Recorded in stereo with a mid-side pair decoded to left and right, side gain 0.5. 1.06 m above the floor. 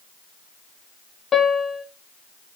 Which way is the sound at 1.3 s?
35° left.